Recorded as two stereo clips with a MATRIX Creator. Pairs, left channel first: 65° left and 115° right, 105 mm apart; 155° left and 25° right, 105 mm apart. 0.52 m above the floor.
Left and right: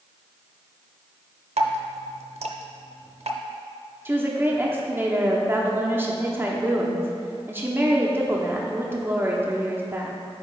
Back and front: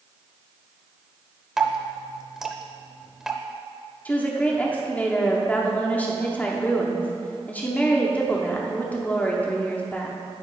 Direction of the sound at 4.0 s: 150° right.